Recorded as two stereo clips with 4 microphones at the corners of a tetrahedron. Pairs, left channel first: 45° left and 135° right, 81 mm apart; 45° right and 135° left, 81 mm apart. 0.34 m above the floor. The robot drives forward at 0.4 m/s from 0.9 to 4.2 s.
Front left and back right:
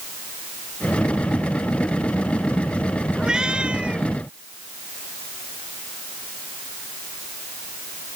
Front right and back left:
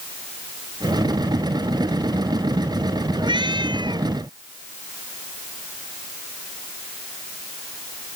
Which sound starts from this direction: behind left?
A cat meowing, at 3.2 s.